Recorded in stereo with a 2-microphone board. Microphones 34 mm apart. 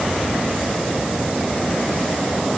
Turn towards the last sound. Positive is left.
No sound to turn to.